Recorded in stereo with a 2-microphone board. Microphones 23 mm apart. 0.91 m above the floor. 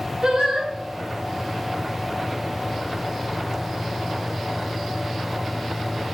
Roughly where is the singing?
Right.